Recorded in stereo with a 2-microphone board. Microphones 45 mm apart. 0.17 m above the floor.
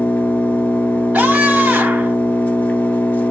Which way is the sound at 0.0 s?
40° left (ahead or behind).